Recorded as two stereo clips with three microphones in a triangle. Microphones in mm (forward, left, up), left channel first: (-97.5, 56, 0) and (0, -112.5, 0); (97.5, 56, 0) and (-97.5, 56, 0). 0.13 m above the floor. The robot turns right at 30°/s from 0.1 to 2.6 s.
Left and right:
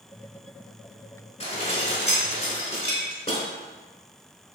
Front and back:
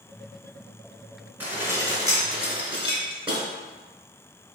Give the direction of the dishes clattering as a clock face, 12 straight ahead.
8 o'clock.